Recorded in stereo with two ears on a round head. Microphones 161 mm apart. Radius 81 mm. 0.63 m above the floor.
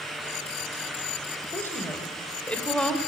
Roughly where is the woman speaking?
Centre.